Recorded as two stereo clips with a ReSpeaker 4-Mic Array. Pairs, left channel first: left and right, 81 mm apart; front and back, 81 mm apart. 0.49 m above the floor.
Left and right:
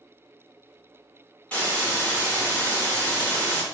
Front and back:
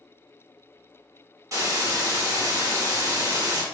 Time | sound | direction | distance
1.5 | a hiss | 155° left | 1.5 m